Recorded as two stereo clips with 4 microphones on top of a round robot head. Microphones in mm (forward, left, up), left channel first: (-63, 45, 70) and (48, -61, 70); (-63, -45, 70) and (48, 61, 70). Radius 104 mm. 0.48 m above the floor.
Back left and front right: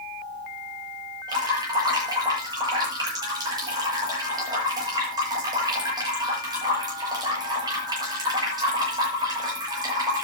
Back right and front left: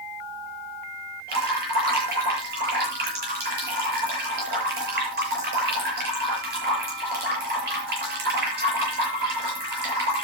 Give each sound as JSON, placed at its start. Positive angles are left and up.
{"t": 1.3, "sound": "dripping", "azimuth_deg": 20, "distance_m": 7.5}